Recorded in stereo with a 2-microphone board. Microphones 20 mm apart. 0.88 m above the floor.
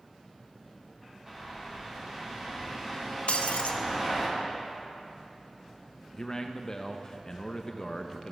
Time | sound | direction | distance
1.3 | a bird | 25° right (ahead or behind) | 1.6 m
3.3 | breaking glass | 70° left (ahead or behind) | 0.5 m
6.1 | a man speaking | 25° left (ahead or behind) | 0.5 m